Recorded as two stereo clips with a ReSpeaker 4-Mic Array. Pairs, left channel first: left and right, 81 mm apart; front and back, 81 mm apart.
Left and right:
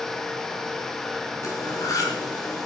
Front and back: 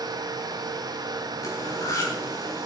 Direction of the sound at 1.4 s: 45° left.